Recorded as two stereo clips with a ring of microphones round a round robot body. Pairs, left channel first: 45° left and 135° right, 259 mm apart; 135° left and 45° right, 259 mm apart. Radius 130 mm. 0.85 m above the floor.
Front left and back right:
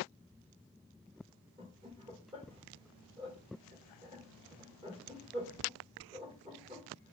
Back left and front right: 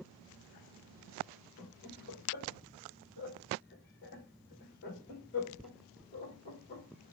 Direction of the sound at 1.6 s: 165° left.